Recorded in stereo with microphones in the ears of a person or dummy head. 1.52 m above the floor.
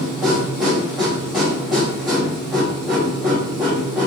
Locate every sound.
0.0 s a machine running: 5° left (ahead or behind), 1.2 m